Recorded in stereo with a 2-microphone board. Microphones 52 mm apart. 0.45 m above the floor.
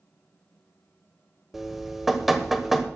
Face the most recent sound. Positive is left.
turn(degrees=-5)  # may be behind; listen again after turning